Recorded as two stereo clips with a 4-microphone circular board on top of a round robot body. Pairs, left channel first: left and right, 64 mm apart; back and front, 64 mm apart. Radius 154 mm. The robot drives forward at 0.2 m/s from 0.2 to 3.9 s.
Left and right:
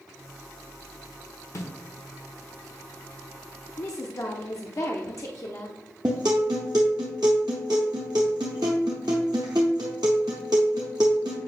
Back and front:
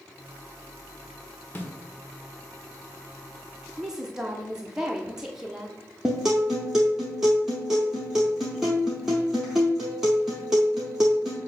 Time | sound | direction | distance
1.6 | a snare drum | 120° left | 1.6 m
3.8 | a woman speaking | 75° left | 0.9 m
6.0 | a guitar | 80° right | 0.5 m